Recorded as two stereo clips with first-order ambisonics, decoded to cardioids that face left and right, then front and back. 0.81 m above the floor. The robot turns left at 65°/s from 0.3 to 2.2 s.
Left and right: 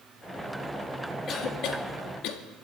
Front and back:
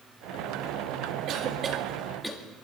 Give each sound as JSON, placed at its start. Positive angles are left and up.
{"t": 1.3, "sound": "a cough", "azimuth_deg": 145, "distance_m": 1.6}